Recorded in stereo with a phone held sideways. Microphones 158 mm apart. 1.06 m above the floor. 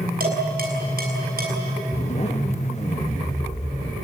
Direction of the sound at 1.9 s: 40° left (ahead or behind).